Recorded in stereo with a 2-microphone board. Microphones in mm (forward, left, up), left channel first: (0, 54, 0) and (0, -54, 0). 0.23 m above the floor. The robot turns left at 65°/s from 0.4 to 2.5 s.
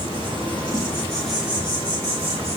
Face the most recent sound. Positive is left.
turn(degrees=-80)